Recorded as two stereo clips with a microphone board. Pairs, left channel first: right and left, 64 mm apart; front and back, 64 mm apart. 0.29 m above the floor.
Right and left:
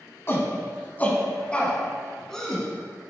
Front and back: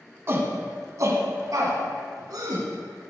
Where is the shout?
135° right, 1.7 m; by 2.6 s 175° right, 2.5 m.